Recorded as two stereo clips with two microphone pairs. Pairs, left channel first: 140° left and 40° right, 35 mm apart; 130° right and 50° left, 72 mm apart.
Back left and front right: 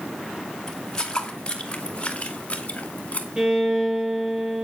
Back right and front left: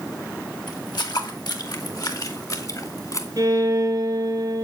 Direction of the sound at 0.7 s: 145° right.